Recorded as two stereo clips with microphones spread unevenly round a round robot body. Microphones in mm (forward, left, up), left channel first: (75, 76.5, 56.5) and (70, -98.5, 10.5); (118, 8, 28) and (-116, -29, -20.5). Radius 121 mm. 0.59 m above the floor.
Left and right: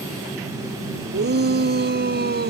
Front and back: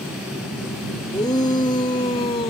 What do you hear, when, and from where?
1.1 s a shout: 65° right; by 2.5 s 60° right